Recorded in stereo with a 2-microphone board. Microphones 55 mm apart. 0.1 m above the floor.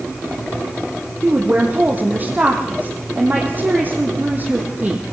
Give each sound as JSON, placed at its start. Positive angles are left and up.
{"t": 1.2, "sound": "a woman speaking", "side_deg": -35, "distance_m": 4.0}